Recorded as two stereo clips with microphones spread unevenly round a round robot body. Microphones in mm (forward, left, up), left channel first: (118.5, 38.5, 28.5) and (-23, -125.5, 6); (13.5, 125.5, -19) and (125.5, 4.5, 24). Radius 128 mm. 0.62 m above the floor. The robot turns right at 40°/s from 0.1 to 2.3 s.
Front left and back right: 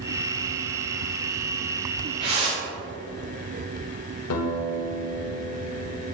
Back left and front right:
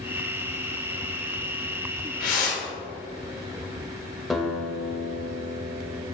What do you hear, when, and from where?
2.2 s a whoosh: 165° left, 1.7 m
4.3 s a guitar: 45° left, 1.1 m